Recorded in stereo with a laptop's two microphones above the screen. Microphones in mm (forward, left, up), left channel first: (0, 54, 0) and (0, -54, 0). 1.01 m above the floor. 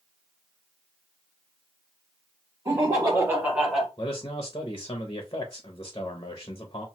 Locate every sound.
2.6 s laughter: 30° right (ahead or behind), 1.1 m; by 3.9 s centre (ahead or behind), 1.3 m
4.0 s a man speaking: 40° left (ahead or behind), 0.5 m